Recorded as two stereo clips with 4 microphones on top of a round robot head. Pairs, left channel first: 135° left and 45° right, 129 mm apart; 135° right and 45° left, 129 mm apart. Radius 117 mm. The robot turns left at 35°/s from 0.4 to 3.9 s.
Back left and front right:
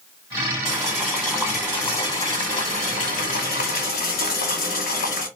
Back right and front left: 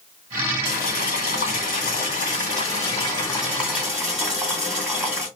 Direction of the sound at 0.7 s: 115° right.